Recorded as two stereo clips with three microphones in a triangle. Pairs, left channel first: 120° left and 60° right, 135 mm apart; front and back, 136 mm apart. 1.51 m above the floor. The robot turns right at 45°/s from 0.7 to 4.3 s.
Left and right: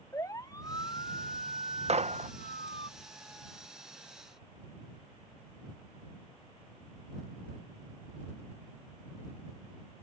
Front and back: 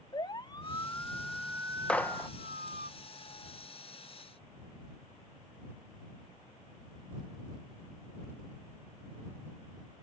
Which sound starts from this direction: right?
A gunshot, at 1.9 s.